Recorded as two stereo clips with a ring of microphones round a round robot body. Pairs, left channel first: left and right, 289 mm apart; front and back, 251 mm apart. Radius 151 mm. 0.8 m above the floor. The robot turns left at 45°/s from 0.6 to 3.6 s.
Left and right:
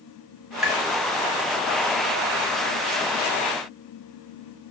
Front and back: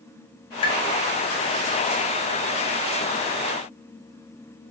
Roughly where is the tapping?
Ahead.